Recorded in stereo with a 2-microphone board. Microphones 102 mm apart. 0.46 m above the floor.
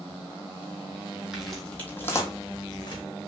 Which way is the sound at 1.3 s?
5° right (ahead or behind).